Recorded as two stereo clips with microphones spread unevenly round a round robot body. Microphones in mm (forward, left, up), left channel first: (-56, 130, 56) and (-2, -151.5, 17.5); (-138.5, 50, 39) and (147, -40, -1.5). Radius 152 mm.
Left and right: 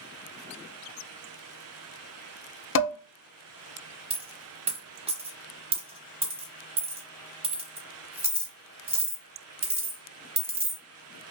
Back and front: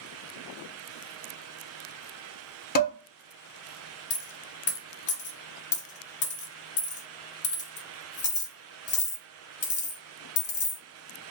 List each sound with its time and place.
2.8 s dishes clattering: 115° left, 0.6 m
4.1 s a dropped coin: 150° right, 0.9 m